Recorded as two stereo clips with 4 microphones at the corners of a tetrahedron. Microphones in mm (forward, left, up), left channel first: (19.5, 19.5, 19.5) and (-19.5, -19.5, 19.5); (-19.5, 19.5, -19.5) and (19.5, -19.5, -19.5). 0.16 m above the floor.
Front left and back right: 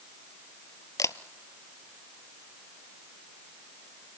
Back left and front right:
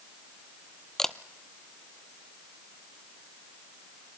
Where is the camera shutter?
55° left, 0.6 m.